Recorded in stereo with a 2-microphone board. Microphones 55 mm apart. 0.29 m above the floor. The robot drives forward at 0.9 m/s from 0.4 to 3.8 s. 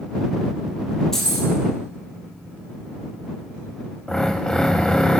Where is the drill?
15° left (ahead or behind), 0.9 m.